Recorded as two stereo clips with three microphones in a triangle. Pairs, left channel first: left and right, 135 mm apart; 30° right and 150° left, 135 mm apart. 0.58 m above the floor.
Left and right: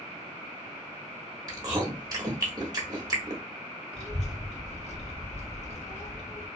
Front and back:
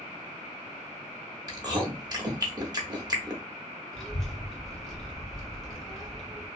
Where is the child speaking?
55° left, 1.2 m.